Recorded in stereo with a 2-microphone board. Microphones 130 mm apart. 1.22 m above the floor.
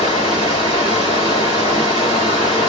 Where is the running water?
40° left (ahead or behind), 2.5 m.